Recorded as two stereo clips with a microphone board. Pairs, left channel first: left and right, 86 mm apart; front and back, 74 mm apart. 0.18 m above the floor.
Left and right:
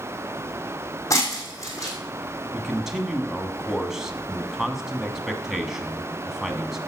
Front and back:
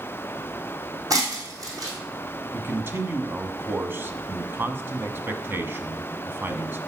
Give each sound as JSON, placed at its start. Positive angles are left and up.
{"t": 1.1, "sound": "breaking glass", "azimuth_deg": 140, "distance_m": 3.0}
{"t": 2.5, "sound": "a man speaking", "azimuth_deg": -170, "distance_m": 1.2}